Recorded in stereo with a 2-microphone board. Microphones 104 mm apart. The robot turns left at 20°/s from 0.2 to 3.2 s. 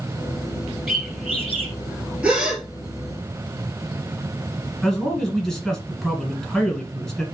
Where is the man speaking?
5° left (ahead or behind), 1.2 m.